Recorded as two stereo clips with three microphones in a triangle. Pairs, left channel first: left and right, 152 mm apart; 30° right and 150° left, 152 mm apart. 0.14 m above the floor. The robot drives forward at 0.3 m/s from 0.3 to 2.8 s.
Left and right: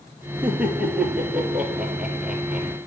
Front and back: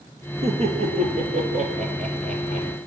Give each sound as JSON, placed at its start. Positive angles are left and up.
{"t": 0.4, "sound": "laughter", "azimuth_deg": -170, "distance_m": 2.5}